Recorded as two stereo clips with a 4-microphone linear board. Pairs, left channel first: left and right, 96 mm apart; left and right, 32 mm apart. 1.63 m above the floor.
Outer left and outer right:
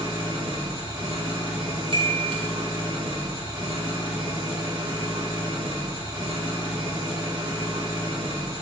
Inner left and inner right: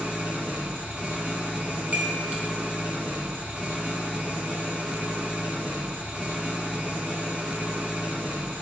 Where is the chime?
55° right (ahead or behind), 0.9 m.